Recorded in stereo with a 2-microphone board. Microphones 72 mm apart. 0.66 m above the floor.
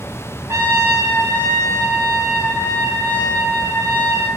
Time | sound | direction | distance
0.5 | a trumpet | 45° right (ahead or behind) | 3 m